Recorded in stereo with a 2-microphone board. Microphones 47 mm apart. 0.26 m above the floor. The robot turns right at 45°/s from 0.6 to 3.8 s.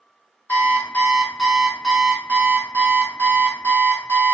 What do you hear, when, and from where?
0.5 s an alarm clock: 130° left, 0.9 m; by 4.3 s 85° right, 0.9 m